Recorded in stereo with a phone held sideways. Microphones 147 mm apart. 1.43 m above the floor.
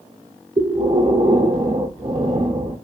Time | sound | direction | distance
0.6 | breathing | 45° right (ahead or behind) | 0.5 m